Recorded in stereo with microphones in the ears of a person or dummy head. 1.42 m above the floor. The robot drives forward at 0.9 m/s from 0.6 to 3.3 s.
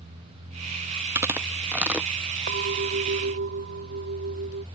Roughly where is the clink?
Right.